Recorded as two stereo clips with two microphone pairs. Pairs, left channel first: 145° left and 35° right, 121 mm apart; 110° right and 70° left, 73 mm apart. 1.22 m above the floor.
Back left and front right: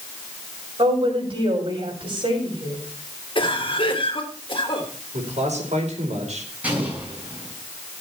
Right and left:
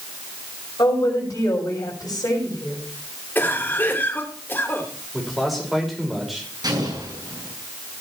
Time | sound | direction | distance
0.8 | a woman speaking | 75° right | 6 m
3.4 | a cough | 170° right | 3 m
5.1 | a man speaking | 20° right | 5 m
6.6 | an explosion | 40° left | 7.5 m